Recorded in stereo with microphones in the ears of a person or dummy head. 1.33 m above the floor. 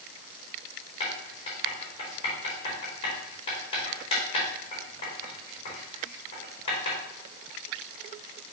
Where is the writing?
35° left (ahead or behind), 3 m.